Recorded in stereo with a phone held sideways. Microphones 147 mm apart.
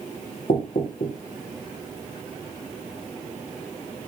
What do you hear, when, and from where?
0.5 s knocking: 65° left (ahead or behind), 2.5 m